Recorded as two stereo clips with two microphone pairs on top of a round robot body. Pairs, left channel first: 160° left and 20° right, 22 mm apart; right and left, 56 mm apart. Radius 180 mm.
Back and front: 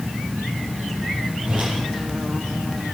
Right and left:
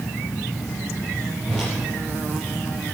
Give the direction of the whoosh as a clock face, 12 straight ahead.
12 o'clock.